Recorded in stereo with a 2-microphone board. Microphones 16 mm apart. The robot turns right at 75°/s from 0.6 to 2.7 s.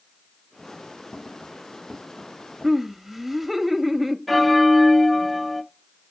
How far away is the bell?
About 0.9 m.